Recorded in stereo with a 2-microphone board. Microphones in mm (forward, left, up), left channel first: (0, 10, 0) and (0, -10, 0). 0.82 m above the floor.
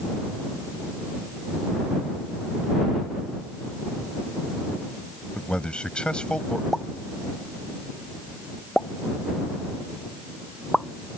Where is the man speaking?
55° left (ahead or behind).